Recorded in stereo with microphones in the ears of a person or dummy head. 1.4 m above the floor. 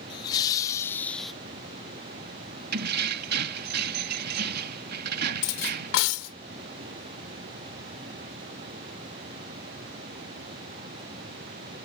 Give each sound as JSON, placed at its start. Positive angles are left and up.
{"t": 0.1, "sound": "laughter", "side_deg": 25}
{"t": 2.7, "sound": "keys jangling", "side_deg": -55}
{"t": 5.4, "sound": "cutlery clinking", "side_deg": 75}